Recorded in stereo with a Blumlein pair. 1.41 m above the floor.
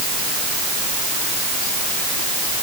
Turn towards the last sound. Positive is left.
No sound to turn to.